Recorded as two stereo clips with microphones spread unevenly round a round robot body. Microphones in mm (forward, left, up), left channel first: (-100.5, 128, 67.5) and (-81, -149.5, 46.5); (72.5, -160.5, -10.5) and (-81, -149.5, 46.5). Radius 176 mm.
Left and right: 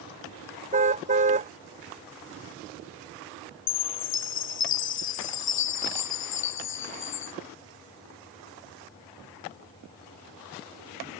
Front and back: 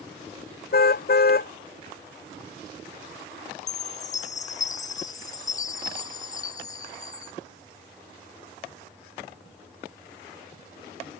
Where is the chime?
50° left.